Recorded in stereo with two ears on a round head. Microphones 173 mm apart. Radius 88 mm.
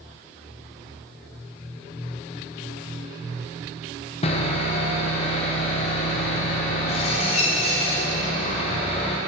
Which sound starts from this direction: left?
Sawing, at 4.2 s.